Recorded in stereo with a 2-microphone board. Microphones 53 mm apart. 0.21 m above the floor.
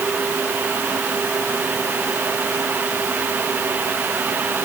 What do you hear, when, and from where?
Only background noise.